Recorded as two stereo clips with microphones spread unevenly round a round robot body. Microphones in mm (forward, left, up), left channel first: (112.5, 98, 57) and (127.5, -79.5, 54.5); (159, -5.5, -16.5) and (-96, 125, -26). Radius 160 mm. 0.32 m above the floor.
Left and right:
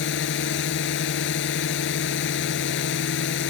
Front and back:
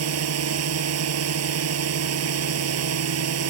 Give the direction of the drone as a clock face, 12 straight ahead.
8 o'clock.